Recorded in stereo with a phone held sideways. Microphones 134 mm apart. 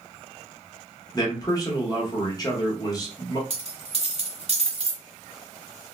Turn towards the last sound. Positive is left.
turn(degrees=-45)  # may be behind; listen again after turning